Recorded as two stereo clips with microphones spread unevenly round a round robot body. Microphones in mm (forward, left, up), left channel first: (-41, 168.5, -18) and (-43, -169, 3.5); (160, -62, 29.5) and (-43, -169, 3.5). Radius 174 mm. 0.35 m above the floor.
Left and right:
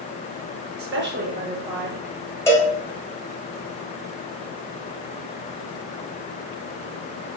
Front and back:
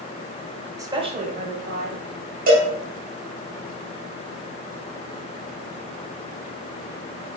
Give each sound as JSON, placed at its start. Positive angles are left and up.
{"t": 0.8, "sound": "a woman speaking", "azimuth_deg": -95, "distance_m": 1.0}
{"t": 2.5, "sound": "a cowbell", "azimuth_deg": 170, "distance_m": 1.7}